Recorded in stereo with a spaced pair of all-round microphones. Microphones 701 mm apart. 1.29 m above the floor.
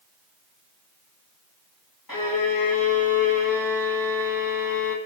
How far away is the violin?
About 3 m.